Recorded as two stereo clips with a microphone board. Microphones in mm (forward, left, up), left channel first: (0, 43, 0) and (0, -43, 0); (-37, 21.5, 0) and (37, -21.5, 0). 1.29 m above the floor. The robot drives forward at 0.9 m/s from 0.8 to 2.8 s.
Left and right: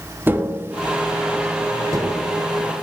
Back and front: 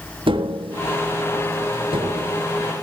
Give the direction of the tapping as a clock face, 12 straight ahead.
1 o'clock.